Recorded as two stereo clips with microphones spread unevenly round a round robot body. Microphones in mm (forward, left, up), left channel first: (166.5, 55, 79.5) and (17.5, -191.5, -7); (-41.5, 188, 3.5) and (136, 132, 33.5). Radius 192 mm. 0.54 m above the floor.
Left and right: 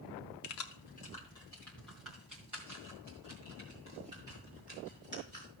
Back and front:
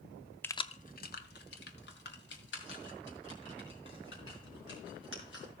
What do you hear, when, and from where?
0.4 s keys jangling: 90° left, 0.6 m; by 5.5 s 160° left, 5 m